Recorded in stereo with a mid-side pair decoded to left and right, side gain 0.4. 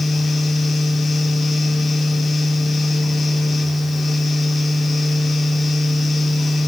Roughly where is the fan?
Ahead left.